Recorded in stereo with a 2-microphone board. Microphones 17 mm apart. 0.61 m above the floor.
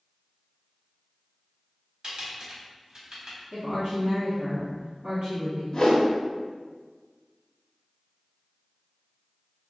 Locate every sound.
2.0 s typing on a keyboard: 50° right (ahead or behind), 1.3 m
3.5 s a woman speaking: 50° right (ahead or behind), 1.0 m
5.7 s a whoosh: 40° left (ahead or behind), 0.6 m